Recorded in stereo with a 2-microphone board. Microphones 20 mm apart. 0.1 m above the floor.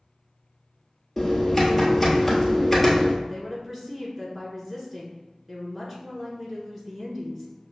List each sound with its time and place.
1.2 s typing on a keyboard: 10° left (ahead or behind), 1.3 m
3.2 s a woman speaking: 20° right (ahead or behind), 1.3 m